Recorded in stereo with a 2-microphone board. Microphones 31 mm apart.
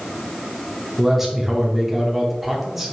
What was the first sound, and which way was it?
A man speaking, 5° right (ahead or behind).